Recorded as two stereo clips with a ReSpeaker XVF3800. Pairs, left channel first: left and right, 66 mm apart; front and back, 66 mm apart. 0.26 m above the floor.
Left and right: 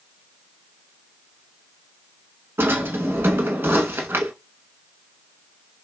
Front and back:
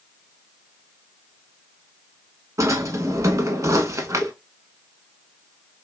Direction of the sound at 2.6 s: 145° right.